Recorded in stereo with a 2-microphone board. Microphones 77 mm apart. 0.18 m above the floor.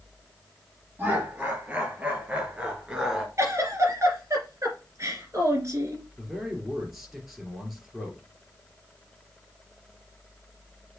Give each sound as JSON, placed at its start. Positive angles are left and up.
{"t": 1.0, "sound": "laughter", "side_deg": -25, "distance_m": 4.0}
{"t": 3.4, "sound": "a giggle", "side_deg": -40, "distance_m": 2.5}
{"t": 6.2, "sound": "a man speaking", "side_deg": -5, "distance_m": 3.5}